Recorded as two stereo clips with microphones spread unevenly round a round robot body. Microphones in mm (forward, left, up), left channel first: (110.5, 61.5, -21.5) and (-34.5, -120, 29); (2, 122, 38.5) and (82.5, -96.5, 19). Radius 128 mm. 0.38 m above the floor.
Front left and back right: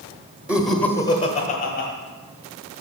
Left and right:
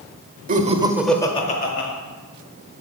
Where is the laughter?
35° right, 1.1 m; by 1.9 s 80° left, 1.3 m.